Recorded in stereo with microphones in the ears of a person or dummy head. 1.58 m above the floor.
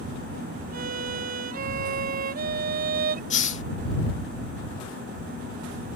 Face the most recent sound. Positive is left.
turn(degrees=40)  # may be behind; listen again after turning